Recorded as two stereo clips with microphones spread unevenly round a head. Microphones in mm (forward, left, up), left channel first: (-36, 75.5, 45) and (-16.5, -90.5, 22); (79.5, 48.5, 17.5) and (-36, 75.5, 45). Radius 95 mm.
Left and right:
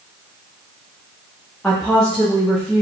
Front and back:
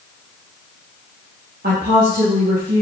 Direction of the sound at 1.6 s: Straight behind.